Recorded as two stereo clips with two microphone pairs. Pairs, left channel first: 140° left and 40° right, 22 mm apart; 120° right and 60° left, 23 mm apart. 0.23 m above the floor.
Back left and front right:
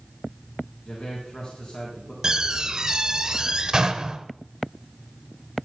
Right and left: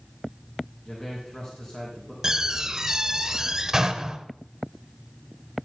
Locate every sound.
0.8 s a man speaking: 170° left, 3 m
2.2 s a door slam: 5° left, 0.8 m